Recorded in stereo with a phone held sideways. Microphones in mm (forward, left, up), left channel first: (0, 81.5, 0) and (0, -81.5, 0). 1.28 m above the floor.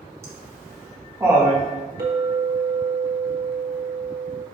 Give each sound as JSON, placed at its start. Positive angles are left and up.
{"t": 0.2, "sound": "laughter", "side_deg": -15, "distance_m": 1.6}
{"t": 2.0, "sound": "a clink", "side_deg": -75, "distance_m": 1.5}